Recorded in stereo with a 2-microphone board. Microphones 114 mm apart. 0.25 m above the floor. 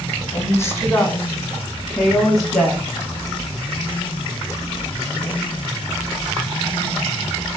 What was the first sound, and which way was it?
A woman speaking, 25° left (ahead or behind).